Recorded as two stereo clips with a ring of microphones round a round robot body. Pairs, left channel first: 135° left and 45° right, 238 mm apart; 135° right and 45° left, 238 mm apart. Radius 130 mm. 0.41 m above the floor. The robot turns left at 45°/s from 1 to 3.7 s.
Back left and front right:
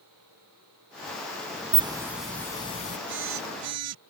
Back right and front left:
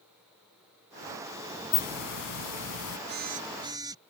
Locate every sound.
1.7 s a hiss: 110° right; by 3.0 s 170° right
3.1 s a phone buzzing: straight ahead; by 4.0 s 30° right